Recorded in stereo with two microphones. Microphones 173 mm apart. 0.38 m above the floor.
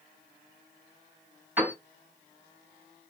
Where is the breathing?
No breathing in this recording.